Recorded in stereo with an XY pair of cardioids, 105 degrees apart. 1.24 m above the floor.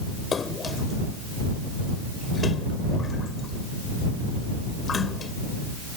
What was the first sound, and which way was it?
A splash, 40° left.